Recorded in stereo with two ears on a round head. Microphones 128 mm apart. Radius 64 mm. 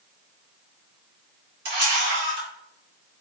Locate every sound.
1.6 s a camera shutter: 70° right (ahead or behind), 1.9 m